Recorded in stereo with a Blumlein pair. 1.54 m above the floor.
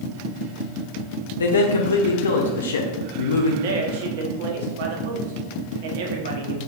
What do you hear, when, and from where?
1.4 s a man speaking: 65° left, 0.7 m
3.6 s a man speaking: 55° right, 0.9 m